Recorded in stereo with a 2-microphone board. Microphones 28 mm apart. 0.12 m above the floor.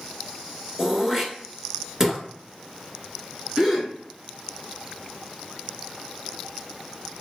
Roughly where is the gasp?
Centre.